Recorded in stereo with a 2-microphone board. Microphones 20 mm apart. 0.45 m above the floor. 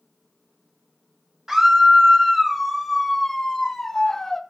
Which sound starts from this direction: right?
A scream, at 1.5 s.